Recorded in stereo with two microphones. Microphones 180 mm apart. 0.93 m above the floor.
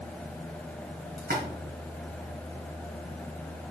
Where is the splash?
65° right (ahead or behind), 2.5 m.